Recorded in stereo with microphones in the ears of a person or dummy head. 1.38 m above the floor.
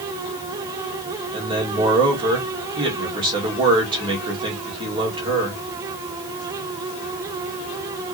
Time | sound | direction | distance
1.3 | a man speaking | 25° right (ahead or behind) | 2.5 m